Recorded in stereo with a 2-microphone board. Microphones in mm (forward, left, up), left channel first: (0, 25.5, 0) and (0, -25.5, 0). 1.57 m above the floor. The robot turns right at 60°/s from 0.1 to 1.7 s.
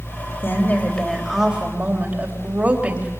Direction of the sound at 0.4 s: 135° left.